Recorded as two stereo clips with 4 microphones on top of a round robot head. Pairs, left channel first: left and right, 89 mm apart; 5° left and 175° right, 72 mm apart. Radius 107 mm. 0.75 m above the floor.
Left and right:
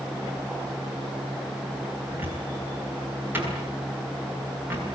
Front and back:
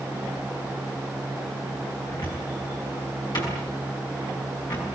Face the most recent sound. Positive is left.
turn(degrees=-20)